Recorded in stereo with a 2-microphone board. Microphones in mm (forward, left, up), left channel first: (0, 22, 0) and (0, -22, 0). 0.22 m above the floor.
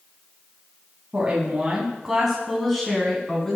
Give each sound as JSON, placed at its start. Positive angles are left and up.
{"t": 1.1, "sound": "a woman speaking", "side_deg": -25, "distance_m": 1.6}